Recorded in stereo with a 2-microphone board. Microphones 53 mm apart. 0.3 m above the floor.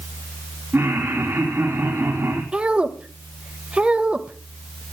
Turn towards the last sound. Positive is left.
turn(degrees=-20)  # may be behind; listen again after turning